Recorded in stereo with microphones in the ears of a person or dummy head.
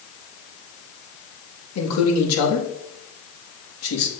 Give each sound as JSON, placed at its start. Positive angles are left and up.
{"t": 1.8, "sound": "a man speaking", "side_deg": 85, "distance_m": 1.9}